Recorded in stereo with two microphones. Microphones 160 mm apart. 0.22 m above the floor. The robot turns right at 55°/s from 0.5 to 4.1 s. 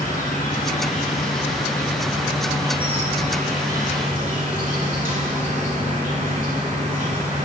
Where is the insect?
95° left, 1.6 m; by 7.5 s 70° right, 1.6 m.